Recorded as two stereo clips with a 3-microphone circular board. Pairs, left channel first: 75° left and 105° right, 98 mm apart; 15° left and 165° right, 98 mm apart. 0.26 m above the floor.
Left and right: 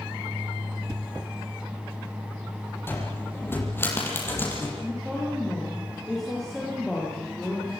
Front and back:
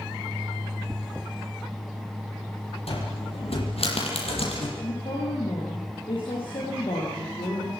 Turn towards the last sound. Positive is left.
turn(degrees=-10)